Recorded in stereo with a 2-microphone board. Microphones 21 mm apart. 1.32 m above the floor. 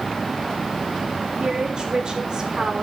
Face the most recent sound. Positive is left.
turn(degrees=-40)  # may be behind; listen again after turning